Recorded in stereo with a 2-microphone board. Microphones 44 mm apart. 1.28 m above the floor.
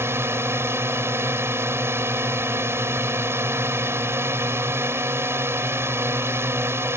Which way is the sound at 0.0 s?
70° right (ahead or behind).